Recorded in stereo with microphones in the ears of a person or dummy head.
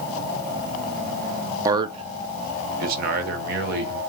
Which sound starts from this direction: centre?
A man speaking, at 1.6 s.